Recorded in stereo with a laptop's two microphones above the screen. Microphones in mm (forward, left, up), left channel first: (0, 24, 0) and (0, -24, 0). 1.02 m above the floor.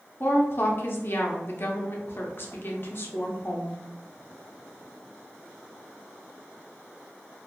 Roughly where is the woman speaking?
Left.